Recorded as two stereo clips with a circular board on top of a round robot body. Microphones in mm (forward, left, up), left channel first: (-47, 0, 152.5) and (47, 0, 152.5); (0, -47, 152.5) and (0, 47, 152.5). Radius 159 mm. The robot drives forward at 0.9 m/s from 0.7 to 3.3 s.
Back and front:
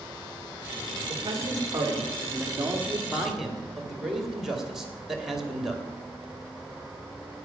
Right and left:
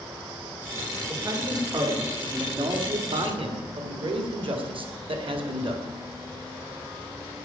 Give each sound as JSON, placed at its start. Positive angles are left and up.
{"t": 1.1, "sound": "a man speaking", "azimuth_deg": 40, "distance_m": 3.0}